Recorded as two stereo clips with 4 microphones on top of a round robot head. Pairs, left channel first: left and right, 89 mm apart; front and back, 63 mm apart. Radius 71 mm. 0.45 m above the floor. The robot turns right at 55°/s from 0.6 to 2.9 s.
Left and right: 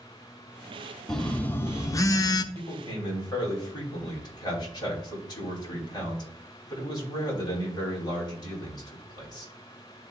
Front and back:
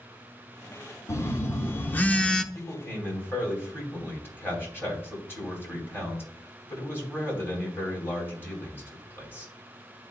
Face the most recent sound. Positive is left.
turn(degrees=55)